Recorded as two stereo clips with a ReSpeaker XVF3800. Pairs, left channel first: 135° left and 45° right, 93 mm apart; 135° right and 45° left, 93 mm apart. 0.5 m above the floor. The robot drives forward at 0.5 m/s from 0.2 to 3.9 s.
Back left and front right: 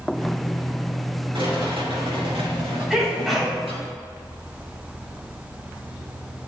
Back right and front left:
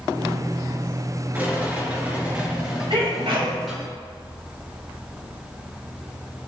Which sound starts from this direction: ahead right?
A rattle, at 1.3 s.